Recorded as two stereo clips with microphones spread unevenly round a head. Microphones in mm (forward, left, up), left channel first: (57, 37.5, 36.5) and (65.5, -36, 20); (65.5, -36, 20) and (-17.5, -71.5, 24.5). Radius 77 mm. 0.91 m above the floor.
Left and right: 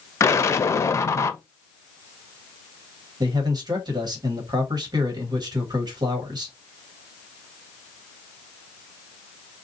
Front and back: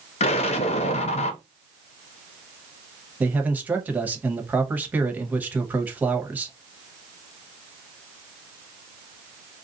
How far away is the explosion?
About 0.5 m.